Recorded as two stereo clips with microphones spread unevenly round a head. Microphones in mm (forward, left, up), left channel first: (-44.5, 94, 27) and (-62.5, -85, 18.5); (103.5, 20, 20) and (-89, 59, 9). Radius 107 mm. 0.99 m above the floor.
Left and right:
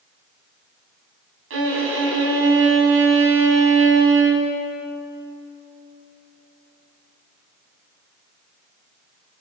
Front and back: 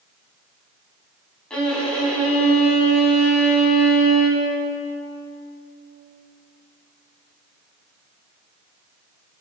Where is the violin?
95° right, 4.5 m.